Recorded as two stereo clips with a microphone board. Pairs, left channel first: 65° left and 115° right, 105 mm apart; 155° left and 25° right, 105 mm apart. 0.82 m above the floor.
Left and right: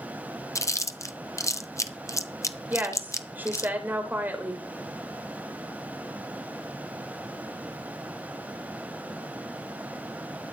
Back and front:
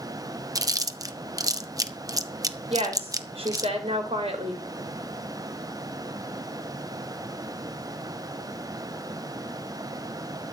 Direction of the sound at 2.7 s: 40° right.